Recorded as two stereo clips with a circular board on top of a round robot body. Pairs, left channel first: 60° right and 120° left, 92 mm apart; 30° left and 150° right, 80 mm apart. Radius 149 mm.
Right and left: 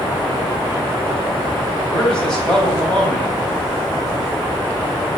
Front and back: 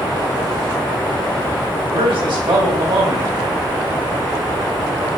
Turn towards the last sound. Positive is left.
turn(degrees=-145)